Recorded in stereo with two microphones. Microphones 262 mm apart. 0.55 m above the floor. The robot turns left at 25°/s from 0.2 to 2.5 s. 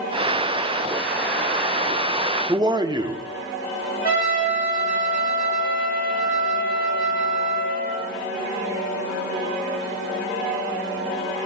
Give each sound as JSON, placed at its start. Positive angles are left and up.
{"t": 2.5, "sound": "a man speaking", "side_deg": -15, "distance_m": 0.7}
{"t": 4.0, "sound": "a trumpet", "side_deg": 35, "distance_m": 3.5}